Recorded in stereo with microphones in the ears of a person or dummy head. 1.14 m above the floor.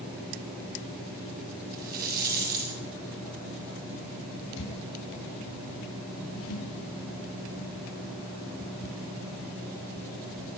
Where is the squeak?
75° left (ahead or behind), 4 m.